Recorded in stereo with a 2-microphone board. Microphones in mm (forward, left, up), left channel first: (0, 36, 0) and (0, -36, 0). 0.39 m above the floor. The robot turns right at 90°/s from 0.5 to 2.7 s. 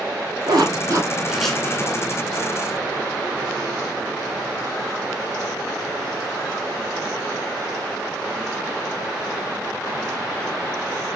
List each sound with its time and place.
0.5 s a zipper: 80° right, 1.3 m; by 2.0 s 55° left (ahead or behind), 1.3 m